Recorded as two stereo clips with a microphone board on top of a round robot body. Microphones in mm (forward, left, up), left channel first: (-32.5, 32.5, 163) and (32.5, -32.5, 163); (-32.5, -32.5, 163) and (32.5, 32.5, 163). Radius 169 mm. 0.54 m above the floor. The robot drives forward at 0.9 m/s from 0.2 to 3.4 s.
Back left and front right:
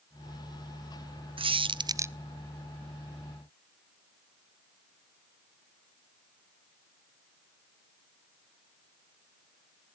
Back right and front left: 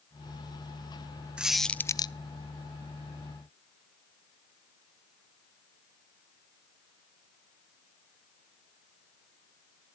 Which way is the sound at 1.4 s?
35° right.